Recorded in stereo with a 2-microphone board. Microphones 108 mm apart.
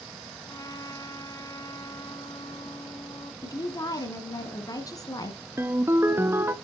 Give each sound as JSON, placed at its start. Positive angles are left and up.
{"t": 0.5, "sound": "a trumpet", "side_deg": 35, "distance_m": 1.7}
{"t": 3.4, "sound": "a woman speaking", "side_deg": 35, "distance_m": 1.7}
{"t": 5.6, "sound": "a ringtone", "side_deg": -25, "distance_m": 0.7}